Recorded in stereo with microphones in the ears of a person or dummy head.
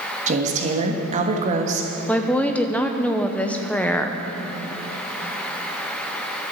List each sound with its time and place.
0.3 s a woman speaking: 45° right (ahead or behind), 1.4 m
2.1 s a woman speaking: 5° right (ahead or behind), 0.7 m